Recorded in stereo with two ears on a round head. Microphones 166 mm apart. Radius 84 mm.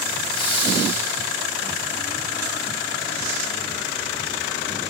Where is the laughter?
30° left (ahead or behind), 6 m; by 1.2 s 40° left (ahead or behind), 5.5 m.